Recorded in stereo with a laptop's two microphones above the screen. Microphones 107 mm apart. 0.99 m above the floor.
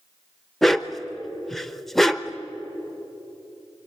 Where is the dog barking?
Centre (ahead or behind), 0.8 m.